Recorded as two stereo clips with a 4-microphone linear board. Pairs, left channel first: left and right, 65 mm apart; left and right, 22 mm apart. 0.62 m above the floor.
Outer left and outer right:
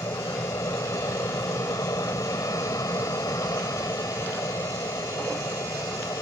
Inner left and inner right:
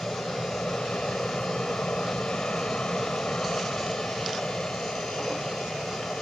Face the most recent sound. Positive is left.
turn(degrees=65)  # may be behind; listen again after turning